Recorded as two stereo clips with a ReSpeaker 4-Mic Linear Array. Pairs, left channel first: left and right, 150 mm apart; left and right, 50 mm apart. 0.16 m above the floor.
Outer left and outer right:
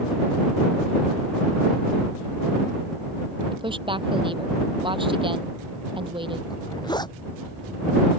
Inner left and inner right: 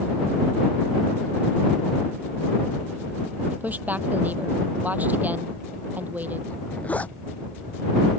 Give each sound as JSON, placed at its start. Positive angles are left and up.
{"t": 3.5, "sound": "a woman speaking", "side_deg": -35}
{"t": 6.5, "sound": "a zipper", "side_deg": 30}